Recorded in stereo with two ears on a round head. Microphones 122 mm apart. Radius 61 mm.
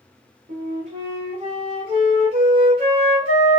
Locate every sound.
0.5 s a flute: 40° right (ahead or behind), 1.2 m